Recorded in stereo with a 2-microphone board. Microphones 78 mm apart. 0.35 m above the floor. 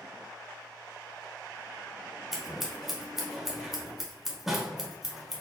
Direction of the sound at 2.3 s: 5° right (ahead or behind).